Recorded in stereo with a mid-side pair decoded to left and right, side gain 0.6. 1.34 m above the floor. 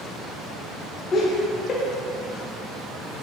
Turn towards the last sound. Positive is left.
turn(degrees=35)